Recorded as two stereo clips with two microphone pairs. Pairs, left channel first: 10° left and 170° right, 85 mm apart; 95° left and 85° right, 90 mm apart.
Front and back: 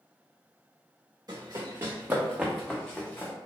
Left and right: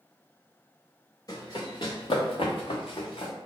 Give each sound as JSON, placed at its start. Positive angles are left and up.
{"t": 1.3, "sound": "running footsteps", "azimuth_deg": 145, "distance_m": 1.0}